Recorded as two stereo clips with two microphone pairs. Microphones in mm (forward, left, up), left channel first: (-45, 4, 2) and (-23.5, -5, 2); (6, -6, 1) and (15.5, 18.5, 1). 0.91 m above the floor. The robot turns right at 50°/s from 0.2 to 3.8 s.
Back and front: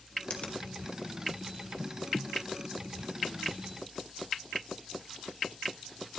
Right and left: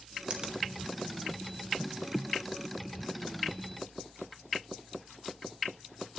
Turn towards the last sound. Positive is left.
turn(degrees=-70)